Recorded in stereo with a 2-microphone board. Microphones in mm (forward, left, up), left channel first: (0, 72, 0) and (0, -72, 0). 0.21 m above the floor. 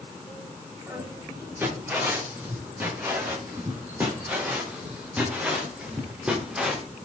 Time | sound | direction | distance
0.9 | footsteps | 15° right (ahead or behind) | 9 m